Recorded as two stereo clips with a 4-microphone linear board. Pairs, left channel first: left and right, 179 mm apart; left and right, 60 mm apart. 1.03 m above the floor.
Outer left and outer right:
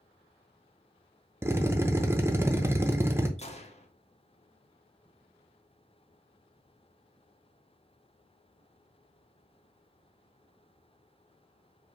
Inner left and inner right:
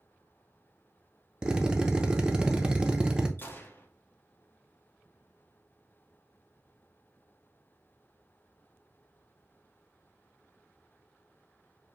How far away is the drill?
About 0.6 m.